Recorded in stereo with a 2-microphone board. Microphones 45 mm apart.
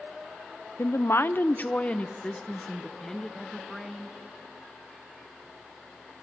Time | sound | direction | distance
0.8 | a woman speaking | 75° left (ahead or behind) | 0.7 m